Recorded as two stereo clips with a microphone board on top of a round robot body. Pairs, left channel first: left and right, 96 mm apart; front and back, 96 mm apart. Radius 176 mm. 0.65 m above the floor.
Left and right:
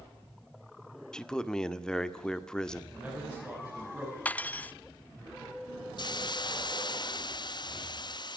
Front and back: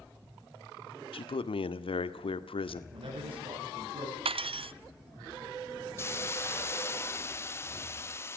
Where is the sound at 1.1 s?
10° left, 1.8 m.